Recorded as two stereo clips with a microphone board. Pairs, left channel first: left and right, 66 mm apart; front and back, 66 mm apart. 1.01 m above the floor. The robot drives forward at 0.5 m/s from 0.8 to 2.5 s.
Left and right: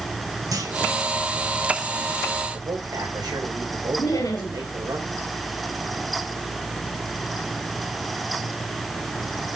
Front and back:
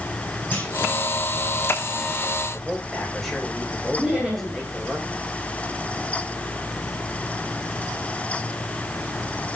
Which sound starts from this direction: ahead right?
A clunk, at 0.5 s.